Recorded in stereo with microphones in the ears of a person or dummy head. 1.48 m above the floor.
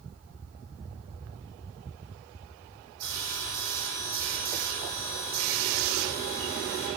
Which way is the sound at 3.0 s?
20° left (ahead or behind).